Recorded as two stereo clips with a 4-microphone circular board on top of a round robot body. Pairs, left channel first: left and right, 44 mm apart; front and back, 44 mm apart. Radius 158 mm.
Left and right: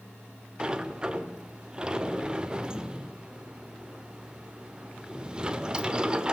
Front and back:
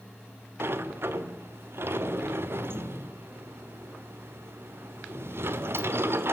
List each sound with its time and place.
0.6 s a sliding door: 160° right, 1.3 m